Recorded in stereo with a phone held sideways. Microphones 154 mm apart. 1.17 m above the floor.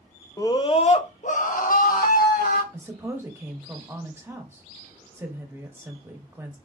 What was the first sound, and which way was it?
A scream, 20° left (ahead or behind).